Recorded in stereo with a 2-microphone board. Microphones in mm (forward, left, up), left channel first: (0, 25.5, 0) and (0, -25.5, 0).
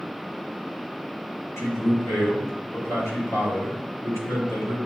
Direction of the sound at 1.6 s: 70° left (ahead or behind).